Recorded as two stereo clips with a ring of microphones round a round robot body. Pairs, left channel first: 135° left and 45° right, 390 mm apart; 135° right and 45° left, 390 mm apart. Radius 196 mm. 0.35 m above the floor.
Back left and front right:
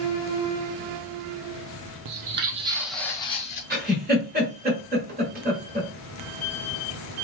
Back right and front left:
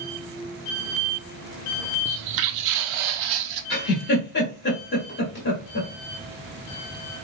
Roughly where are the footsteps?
Ahead.